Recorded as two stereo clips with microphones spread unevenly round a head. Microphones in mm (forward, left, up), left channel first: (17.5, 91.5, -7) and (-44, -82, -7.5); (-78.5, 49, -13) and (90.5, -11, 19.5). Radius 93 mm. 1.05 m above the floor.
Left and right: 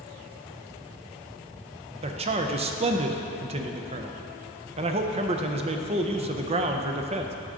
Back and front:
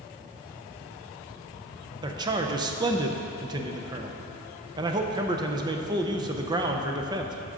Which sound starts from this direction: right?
A man speaking, at 2.0 s.